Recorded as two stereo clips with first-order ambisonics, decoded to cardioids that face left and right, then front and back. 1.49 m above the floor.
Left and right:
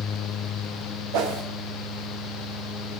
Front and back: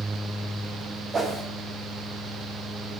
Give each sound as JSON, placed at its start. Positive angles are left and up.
{"t": 1.1, "sound": "a whoosh", "azimuth_deg": -105, "distance_m": 1.2}